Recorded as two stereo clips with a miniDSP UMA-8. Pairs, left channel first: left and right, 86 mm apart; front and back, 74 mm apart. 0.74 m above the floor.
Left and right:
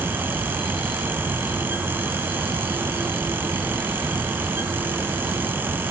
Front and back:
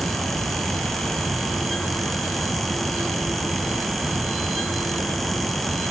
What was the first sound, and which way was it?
Only background noise.